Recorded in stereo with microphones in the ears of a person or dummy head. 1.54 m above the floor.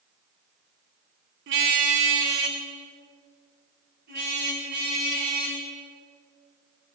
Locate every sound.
1.5 s a car horn: 60° right (ahead or behind), 2 m